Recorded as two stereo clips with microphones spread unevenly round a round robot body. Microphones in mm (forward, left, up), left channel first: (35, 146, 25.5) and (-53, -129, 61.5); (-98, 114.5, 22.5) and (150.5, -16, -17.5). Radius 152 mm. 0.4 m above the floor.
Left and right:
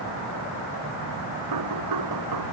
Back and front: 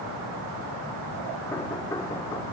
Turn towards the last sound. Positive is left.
turn(degrees=-125)